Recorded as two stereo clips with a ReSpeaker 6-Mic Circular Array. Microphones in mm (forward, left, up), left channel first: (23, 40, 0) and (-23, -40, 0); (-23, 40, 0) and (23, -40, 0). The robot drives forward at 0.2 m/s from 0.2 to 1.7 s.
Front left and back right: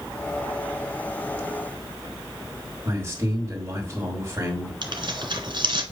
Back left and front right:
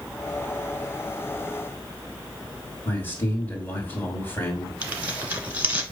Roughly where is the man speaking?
Behind.